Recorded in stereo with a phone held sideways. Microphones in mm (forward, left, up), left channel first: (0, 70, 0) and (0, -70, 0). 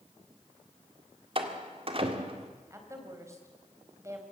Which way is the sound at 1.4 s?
45° right (ahead or behind).